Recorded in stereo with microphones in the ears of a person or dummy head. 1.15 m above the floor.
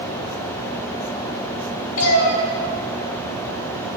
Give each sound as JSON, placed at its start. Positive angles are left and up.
{"t": 2.0, "sound": "a cat meowing", "side_deg": 55, "distance_m": 1.4}